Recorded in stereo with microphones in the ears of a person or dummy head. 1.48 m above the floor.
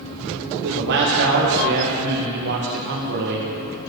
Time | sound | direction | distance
0.6 | a man speaking | 65° right (ahead or behind) | 1.8 m